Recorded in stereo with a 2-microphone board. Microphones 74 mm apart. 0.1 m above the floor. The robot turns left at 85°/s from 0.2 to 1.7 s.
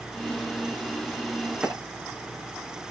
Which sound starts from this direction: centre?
A clap, at 1.6 s.